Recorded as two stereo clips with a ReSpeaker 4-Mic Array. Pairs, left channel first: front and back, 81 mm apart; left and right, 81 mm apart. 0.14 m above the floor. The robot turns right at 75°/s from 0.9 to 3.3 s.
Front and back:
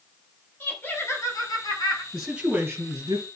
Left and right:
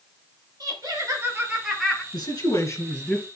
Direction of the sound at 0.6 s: 65° right.